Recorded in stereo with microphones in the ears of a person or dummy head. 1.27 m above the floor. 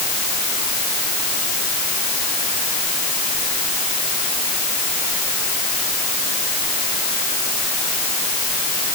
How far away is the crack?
No crack in this recording.